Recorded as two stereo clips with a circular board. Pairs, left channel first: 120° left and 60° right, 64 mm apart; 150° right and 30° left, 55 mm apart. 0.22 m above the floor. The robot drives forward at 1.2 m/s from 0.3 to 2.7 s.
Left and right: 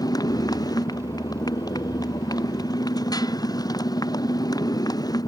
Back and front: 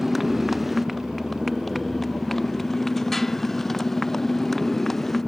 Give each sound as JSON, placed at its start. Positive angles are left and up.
{"t": 0.0, "sound": "a motorcycle", "azimuth_deg": 115}